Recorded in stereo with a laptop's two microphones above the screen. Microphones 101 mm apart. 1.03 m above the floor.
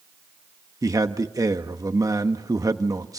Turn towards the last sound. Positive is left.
turn(degrees=-35)  # may be behind; listen again after turning